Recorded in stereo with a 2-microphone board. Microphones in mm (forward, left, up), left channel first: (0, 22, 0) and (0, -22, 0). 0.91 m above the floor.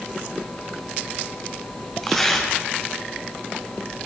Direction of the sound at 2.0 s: 10° left (ahead or behind).